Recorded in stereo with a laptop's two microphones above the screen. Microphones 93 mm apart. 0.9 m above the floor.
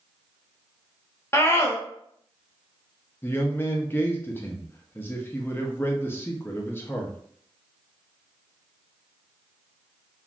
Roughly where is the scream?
Left.